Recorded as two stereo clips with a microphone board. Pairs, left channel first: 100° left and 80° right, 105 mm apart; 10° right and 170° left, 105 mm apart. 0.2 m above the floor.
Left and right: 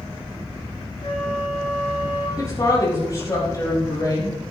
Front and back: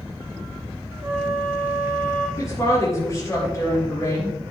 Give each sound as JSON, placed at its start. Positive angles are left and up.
{"t": 1.0, "sound": "a flute", "azimuth_deg": 105, "distance_m": 5.0}
{"t": 2.4, "sound": "a woman speaking", "azimuth_deg": 45, "distance_m": 5.0}